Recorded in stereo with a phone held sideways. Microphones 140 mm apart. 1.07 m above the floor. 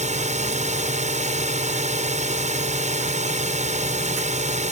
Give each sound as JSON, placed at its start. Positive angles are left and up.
{"t": 0.0, "sound": "a drone", "side_deg": -55}